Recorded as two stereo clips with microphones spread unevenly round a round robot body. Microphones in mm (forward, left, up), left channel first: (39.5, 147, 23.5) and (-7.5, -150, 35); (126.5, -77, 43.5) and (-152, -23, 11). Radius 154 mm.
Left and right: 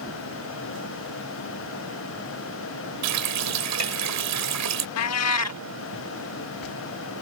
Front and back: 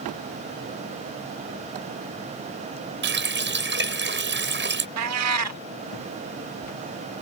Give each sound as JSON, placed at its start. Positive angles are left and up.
{"t": 3.0, "sound": "a running tap", "azimuth_deg": -140}
{"t": 5.0, "sound": "a cat meowing", "azimuth_deg": 125}